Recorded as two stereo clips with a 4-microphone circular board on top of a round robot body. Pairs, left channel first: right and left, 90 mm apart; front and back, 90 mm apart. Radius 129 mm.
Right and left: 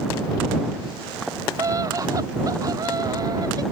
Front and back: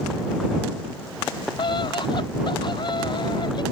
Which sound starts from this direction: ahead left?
A scream, at 1.6 s.